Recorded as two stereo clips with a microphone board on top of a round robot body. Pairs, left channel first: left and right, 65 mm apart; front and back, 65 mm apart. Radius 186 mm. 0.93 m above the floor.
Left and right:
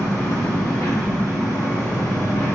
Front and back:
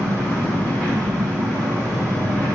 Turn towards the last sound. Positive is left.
turn(degrees=65)